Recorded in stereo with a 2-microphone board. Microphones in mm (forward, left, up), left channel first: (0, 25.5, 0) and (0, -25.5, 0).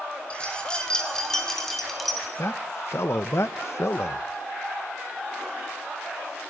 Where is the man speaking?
60° left (ahead or behind), 1.4 m.